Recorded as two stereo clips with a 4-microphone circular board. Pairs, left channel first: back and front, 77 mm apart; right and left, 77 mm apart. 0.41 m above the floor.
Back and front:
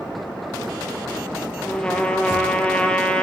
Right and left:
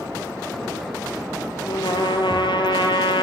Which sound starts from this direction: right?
A trumpet, at 1.7 s.